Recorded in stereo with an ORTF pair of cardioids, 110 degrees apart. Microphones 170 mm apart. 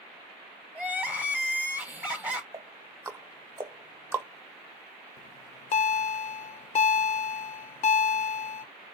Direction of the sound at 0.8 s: 10° right.